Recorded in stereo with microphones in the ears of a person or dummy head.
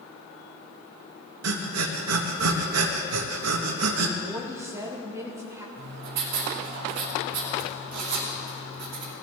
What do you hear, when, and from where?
1.4 s breathing: 80° right, 1.2 m
4.2 s a woman speaking: 15° right (ahead or behind), 1.2 m
5.8 s writing: 60° right (ahead or behind), 2.5 m